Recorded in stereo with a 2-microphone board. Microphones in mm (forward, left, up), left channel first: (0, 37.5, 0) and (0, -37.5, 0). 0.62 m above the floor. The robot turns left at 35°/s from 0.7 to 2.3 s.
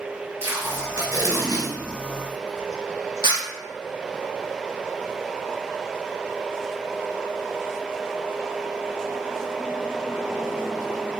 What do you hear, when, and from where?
0.4 s tape being pulled: 35° right (ahead or behind), 1.6 m; by 3.4 s 75° right (ahead or behind), 1.6 m